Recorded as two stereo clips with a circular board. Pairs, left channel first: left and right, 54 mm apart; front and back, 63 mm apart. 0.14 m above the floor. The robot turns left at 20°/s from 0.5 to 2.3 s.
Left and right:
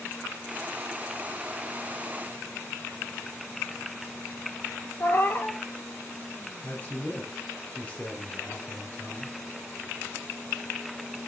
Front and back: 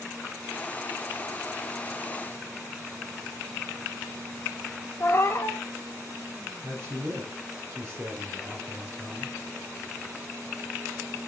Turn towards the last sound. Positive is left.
turn(degrees=145)